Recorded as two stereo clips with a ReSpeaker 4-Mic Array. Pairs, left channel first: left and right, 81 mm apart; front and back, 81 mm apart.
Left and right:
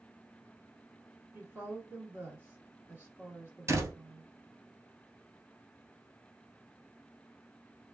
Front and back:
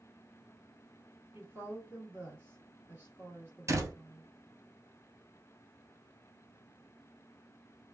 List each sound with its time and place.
1.3 s a woman speaking: 135° right, 1.9 m
3.7 s a door slam: 135° right, 1.5 m